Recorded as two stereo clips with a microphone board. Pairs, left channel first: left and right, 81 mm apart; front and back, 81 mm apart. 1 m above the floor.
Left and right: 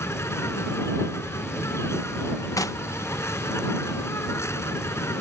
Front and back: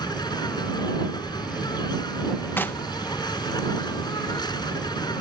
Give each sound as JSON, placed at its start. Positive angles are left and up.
{"t": 0.0, "sound": "an insect", "azimuth_deg": 35}
{"t": 2.6, "sound": "knocking", "azimuth_deg": 60}